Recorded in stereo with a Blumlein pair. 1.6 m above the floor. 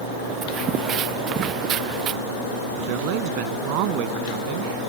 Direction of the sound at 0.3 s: 30° right.